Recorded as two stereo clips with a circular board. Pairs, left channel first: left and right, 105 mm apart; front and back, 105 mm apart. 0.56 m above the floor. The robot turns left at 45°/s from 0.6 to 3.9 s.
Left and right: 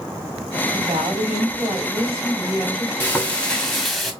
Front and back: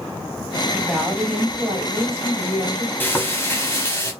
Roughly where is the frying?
Ahead left.